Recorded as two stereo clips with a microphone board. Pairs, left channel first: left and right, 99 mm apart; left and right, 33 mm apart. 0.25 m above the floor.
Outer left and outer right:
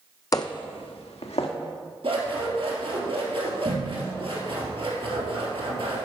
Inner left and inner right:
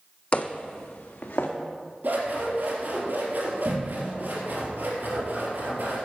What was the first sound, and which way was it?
Footsteps, 35° left (ahead or behind).